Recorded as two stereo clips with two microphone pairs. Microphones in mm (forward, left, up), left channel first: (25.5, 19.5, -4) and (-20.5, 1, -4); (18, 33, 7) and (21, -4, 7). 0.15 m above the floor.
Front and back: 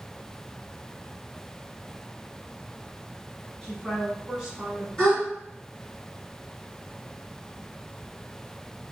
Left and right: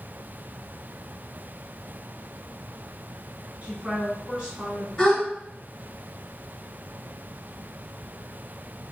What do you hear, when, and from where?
3.6 s a woman speaking: 55° right, 1.7 m; by 4.9 s 165° right, 1.5 m
5.0 s a gasp: 65° left, 1.8 m